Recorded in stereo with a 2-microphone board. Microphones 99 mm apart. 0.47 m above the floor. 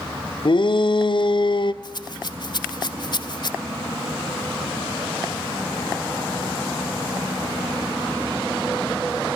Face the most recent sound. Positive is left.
turn(degrees=50)  # may be behind; listen again after turning